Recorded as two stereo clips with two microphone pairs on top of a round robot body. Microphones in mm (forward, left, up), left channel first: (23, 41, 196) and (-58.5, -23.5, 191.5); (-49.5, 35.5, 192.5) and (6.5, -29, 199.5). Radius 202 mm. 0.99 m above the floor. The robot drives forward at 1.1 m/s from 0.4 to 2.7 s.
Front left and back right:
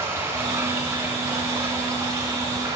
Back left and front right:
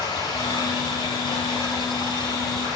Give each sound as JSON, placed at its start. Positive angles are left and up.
{"t": 0.0, "sound": "running water", "azimuth_deg": 155, "distance_m": 9.0}